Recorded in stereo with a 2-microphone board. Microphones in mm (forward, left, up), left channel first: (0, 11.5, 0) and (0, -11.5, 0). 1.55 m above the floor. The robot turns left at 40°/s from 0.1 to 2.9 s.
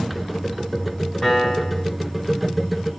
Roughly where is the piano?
Centre.